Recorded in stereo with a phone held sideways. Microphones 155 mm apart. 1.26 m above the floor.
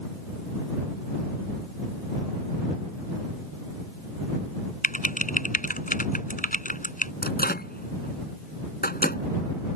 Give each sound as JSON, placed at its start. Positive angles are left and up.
{"t": 4.8, "sound": "typing on a keyboard", "side_deg": 60}
{"t": 7.2, "sound": "a microwave", "side_deg": 85}